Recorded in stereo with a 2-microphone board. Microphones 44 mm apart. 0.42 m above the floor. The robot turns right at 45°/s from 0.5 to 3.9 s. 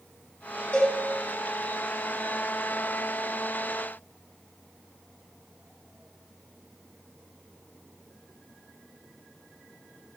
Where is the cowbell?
35° left (ahead or behind), 2 m; by 1.0 s 25° left (ahead or behind), 2 m.